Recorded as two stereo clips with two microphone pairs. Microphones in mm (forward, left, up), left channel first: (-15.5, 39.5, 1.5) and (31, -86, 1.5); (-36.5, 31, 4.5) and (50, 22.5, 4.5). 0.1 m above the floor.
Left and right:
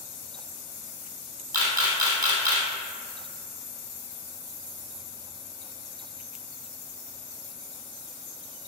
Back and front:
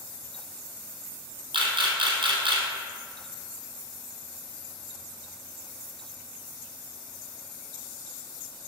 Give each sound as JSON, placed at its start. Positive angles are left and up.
{"t": 1.5, "sound": "a camera shutter", "azimuth_deg": -5, "distance_m": 2.0}